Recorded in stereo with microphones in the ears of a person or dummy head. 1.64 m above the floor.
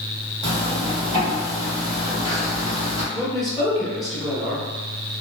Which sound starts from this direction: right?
A zipper, at 0.4 s.